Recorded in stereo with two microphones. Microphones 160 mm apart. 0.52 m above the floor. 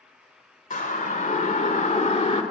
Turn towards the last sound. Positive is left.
turn(degrees=40)  # may be behind; listen again after turning